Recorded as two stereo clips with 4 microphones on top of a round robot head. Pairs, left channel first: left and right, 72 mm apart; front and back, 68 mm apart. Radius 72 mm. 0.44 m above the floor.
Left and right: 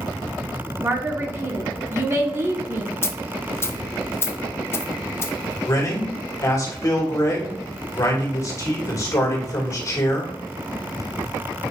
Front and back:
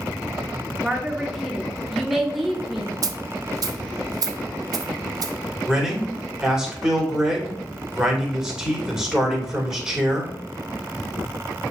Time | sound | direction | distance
0.8 | a woman speaking | 95° right | 0.8 m
3.0 | a dropped coin | 145° left | 0.6 m
5.7 | a man speaking | 100° left | 1.9 m